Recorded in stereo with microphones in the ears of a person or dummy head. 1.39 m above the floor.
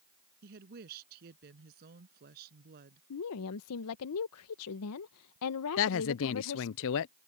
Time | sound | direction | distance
0.4 | a woman speaking | 50° right (ahead or behind) | ?
3.1 | a woman speaking | 80° left | ?
5.8 | a woman speaking | 65° left (ahead or behind) | ?